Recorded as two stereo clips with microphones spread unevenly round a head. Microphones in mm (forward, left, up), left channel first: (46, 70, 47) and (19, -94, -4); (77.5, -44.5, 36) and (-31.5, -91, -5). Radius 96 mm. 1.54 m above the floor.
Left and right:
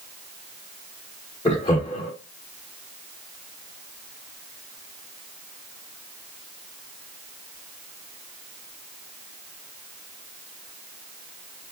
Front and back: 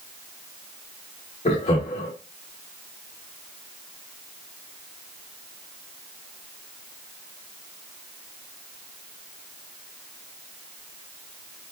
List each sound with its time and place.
1.4 s laughter: 25° left, 0.8 m